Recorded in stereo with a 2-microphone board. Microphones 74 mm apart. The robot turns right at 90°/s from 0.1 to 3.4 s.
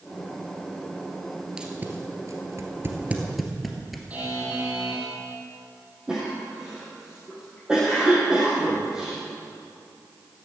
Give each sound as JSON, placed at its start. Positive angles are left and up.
{"t": 1.6, "sound": "tape being pulled", "side_deg": -10, "distance_m": 2.0}
{"t": 4.1, "sound": "a buzzer", "side_deg": -20, "distance_m": 4.5}
{"t": 6.1, "sound": "a cough", "side_deg": -10, "distance_m": 4.5}